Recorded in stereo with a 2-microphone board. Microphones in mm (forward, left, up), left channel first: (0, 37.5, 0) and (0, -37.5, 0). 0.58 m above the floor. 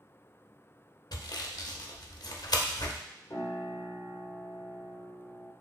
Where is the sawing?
65° left (ahead or behind), 0.6 m.